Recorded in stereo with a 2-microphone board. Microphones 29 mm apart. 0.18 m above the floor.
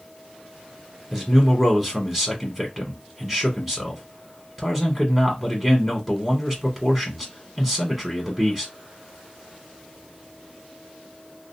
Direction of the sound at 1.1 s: 10° right (ahead or behind).